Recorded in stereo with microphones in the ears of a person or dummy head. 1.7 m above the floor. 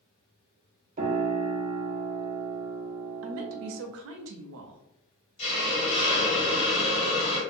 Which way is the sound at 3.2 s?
75° right (ahead or behind).